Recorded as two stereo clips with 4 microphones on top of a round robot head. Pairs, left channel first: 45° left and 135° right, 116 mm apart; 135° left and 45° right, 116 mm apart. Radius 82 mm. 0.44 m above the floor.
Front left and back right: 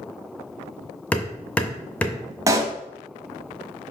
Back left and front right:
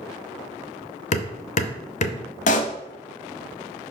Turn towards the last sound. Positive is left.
turn(degrees=155)